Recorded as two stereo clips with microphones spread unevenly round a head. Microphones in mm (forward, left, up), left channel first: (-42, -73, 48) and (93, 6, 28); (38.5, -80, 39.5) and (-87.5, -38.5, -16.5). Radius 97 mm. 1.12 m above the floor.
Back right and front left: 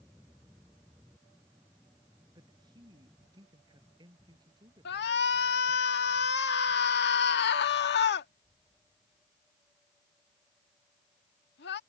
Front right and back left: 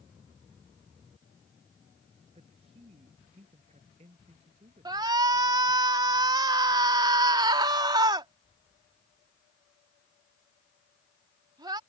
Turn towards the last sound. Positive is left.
turn(degrees=-140)